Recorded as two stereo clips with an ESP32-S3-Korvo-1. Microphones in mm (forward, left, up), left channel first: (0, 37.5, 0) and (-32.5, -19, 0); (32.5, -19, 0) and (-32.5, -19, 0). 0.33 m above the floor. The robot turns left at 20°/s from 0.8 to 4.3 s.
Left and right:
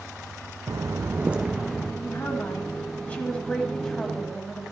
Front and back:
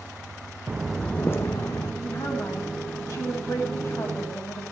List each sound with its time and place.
0.7 s footsteps: 110° right, 0.9 m; by 1.9 s 30° right, 1.4 m
2.0 s a woman speaking: 20° left, 2 m; by 4.7 s 25° right, 2 m